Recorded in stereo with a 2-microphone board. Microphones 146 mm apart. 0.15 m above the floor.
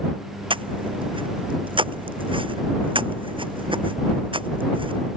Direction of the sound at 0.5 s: 35° right (ahead or behind).